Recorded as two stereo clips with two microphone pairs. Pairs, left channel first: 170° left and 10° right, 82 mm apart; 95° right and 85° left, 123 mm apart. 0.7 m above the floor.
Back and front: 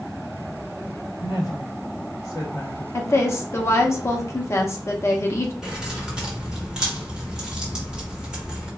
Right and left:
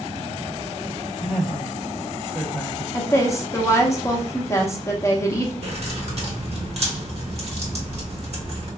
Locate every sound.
1.2 s a woman speaking: 160° left, 1.1 m
2.9 s a woman speaking: 155° right, 0.7 m
5.6 s keys jangling: 70° left, 1.0 m